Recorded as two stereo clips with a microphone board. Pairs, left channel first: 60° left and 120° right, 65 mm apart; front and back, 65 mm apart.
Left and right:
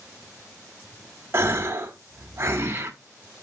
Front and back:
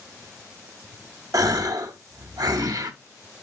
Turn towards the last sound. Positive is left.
turn(degrees=-170)